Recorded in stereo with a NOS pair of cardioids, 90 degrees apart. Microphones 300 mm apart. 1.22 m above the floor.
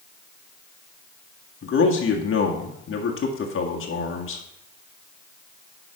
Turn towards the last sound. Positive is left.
turn(degrees=45)